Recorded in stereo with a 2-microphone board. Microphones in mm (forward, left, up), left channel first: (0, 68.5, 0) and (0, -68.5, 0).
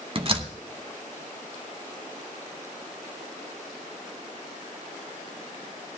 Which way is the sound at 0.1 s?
40° right (ahead or behind).